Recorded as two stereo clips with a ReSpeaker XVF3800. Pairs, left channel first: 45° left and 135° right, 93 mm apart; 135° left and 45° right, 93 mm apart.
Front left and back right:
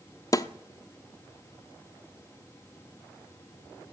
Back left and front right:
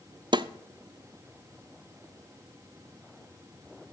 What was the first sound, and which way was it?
A snare drum, 5° right.